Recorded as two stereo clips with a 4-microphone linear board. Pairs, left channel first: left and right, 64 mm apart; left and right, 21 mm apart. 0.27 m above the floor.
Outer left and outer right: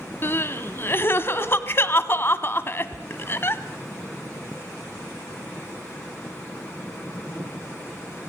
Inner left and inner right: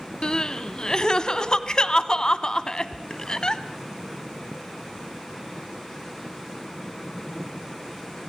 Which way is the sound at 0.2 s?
40° left (ahead or behind).